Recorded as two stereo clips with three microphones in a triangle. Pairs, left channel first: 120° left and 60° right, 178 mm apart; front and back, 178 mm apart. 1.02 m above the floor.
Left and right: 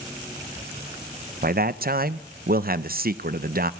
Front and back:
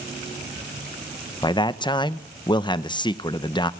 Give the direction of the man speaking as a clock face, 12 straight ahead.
2 o'clock.